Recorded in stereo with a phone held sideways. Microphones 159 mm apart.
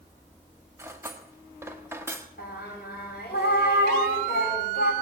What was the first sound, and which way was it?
Cutlery clinking, 15° right (ahead or behind).